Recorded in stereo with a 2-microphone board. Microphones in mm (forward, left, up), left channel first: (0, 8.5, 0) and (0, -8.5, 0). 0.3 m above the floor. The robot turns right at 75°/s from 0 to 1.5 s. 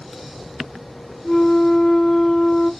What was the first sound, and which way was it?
A flute, 60° left (ahead or behind).